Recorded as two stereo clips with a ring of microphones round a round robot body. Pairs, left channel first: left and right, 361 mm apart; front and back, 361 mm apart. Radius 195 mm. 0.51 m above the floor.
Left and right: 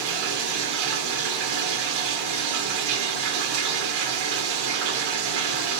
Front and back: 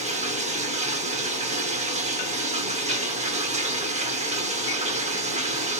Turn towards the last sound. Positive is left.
turn(degrees=-110)